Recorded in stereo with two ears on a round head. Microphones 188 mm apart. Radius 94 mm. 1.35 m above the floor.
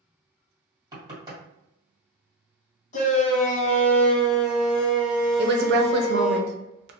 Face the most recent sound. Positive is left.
turn(degrees=-55)  # may be behind; listen again after turning